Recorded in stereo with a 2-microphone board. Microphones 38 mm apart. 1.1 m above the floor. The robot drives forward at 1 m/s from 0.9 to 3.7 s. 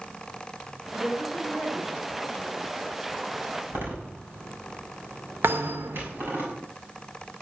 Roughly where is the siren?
I don't hear a siren.